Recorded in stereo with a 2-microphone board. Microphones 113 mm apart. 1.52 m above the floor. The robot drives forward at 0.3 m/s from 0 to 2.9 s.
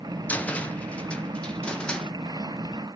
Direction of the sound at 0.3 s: 10° left (ahead or behind).